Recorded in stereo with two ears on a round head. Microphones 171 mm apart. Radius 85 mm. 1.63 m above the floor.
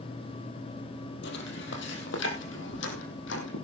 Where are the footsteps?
65° left (ahead or behind), 3.5 m; by 3.6 s 70° left (ahead or behind), 5 m.